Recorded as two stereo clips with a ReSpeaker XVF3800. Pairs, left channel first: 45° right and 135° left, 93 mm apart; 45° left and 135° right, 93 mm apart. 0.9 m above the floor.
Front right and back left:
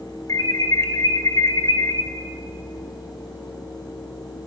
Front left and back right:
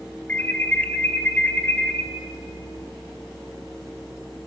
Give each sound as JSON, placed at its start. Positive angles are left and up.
{"t": 0.3, "sound": "an alarm", "azimuth_deg": -20, "distance_m": 1.0}